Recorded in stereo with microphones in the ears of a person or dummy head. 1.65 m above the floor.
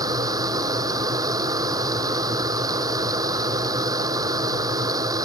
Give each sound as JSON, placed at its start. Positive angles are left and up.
{"t": 0.0, "sound": "a machine running", "side_deg": -20}